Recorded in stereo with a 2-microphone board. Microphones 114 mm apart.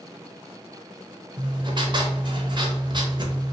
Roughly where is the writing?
Right.